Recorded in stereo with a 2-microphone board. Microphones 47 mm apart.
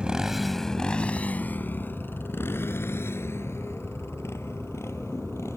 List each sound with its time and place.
0.0 s a motorcycle: 20° right (ahead or behind); by 5.6 s 70° left (ahead or behind)